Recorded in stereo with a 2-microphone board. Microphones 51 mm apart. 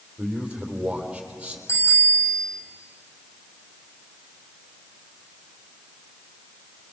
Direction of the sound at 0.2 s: 20° right (ahead or behind).